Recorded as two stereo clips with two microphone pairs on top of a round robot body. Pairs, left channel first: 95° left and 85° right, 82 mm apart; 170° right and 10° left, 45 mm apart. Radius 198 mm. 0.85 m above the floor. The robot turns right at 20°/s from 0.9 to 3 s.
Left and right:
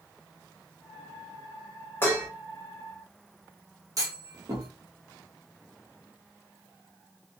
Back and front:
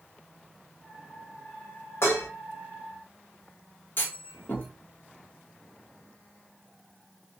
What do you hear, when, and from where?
2.0 s dishes clattering: 160° left, 0.9 m; by 2.3 s 165° left, 0.9 m
4.0 s a clunk: 125° right, 0.9 m